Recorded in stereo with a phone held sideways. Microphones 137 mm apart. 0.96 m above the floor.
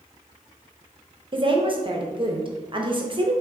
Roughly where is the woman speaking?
Right.